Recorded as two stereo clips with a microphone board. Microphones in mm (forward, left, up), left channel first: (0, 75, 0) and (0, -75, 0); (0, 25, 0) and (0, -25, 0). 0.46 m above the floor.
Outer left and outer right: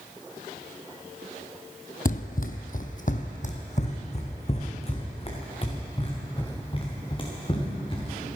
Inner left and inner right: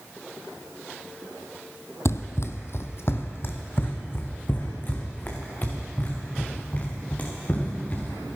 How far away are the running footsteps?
About 0.9 m.